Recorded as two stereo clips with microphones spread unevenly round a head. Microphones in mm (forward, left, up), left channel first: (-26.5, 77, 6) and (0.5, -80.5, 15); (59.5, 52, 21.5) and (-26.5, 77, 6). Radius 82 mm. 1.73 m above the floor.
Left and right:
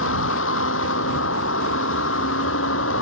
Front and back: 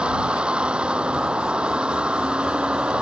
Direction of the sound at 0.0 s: 85° left.